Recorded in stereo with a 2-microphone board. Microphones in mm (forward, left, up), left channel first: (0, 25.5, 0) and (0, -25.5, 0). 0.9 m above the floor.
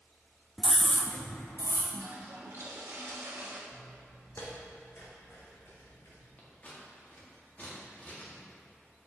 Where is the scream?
5° right (ahead or behind), 0.5 m; by 1.8 s 60° left (ahead or behind), 1.3 m.